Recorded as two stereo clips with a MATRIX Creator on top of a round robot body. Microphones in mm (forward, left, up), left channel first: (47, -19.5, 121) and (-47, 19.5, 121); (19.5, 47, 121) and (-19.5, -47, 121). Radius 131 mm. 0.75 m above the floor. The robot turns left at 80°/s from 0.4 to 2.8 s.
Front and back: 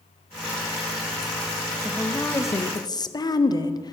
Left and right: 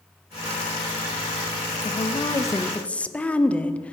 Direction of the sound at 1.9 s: 70° left.